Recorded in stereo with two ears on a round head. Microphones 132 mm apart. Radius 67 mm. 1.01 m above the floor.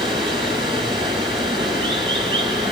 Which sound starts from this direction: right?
Running water, at 0.0 s.